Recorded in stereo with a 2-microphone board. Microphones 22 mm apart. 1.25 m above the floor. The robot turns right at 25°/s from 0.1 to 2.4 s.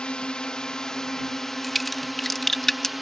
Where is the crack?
Centre (ahead or behind); by 2.9 s 20° left (ahead or behind).